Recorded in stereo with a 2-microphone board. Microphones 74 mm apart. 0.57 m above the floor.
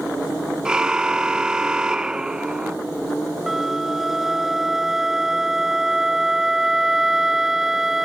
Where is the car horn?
10° right (ahead or behind).